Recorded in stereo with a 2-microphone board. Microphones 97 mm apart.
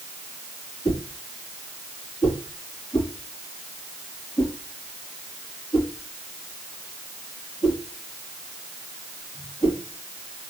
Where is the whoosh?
40° left (ahead or behind), 6 m.